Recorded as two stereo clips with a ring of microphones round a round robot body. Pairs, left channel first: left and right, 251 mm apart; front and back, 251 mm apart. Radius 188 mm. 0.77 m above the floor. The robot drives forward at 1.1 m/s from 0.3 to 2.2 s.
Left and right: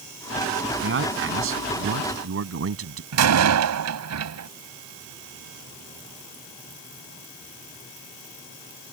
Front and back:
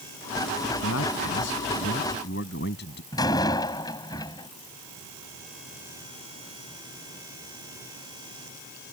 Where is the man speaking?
50° right; by 3.0 s 60° right.